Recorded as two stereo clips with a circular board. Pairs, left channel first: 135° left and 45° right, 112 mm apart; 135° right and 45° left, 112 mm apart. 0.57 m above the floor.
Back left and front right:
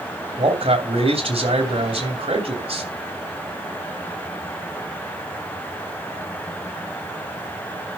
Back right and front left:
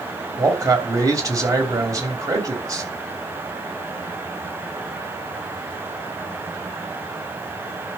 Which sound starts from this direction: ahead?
A man speaking, at 0.4 s.